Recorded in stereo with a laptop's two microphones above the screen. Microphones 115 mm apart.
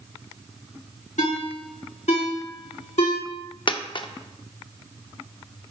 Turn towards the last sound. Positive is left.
turn(degrees=45)  # may be behind; listen again after turning